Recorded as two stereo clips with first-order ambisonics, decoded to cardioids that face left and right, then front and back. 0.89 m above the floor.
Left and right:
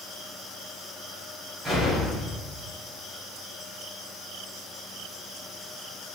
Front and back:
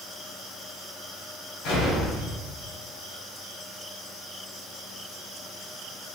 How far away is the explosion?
About 1.1 m.